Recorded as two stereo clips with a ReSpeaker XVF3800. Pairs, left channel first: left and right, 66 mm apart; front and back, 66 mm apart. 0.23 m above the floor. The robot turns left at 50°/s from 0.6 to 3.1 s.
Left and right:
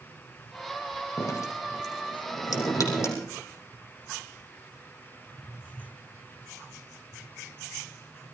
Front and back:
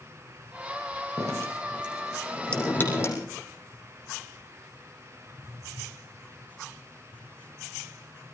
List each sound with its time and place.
1.2 s dripping: 140° left, 5.5 m; by 3.2 s 45° left, 5.5 m